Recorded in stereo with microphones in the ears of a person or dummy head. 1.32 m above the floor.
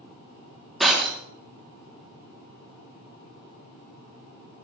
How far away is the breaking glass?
About 1.6 m.